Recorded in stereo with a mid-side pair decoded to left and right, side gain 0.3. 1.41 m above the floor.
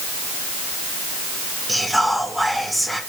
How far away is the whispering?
About 1.8 m.